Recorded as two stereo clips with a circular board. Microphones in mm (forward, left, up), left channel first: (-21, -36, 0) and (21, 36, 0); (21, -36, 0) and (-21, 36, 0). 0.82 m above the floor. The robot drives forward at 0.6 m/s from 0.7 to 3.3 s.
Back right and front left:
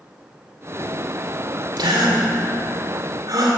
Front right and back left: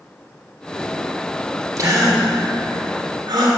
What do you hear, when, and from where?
1.8 s a gasp: 80° left, 2.5 m; by 3.6 s 100° left, 2.5 m